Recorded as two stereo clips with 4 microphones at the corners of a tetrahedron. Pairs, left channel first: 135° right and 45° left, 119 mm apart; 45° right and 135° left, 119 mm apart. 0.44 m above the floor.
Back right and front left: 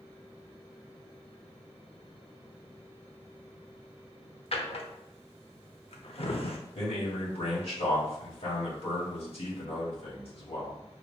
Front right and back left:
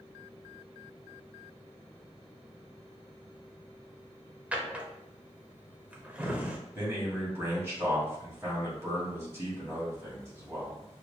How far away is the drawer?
About 0.7 m.